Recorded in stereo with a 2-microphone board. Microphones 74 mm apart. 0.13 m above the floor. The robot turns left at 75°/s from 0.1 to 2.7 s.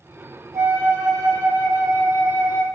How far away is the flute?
About 1.0 m.